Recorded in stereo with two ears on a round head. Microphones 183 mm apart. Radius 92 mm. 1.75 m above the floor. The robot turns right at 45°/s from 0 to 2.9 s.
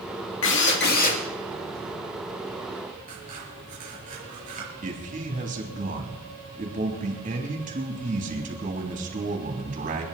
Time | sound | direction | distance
0.4 | a drill | 105° left | 2.5 m
3.1 | scissors | 40° right (ahead or behind) | 6 m
4.8 | a man speaking | 40° right (ahead or behind) | 3 m